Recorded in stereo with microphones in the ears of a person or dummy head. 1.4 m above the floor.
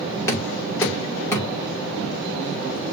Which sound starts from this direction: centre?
Knocking, at 0.3 s.